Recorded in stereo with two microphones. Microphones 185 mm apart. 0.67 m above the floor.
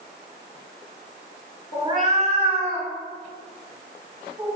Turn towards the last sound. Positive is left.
turn(degrees=-15)  # may be behind; listen again after turning